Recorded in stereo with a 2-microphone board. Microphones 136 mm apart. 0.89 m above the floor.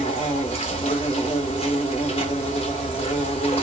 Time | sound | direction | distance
0.0 | an insect | 45° left (ahead or behind) | 1.1 m